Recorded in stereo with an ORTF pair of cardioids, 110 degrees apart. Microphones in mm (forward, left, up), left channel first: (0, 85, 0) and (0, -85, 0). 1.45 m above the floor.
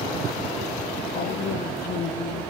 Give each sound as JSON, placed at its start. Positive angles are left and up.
{"t": 1.1, "sound": "a woman speaking", "azimuth_deg": 70, "distance_m": 0.7}